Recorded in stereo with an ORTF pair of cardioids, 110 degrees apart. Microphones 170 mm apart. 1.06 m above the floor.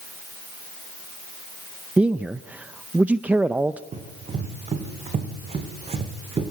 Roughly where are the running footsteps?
Ahead right.